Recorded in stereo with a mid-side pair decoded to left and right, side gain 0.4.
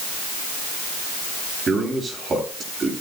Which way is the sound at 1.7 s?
40° right.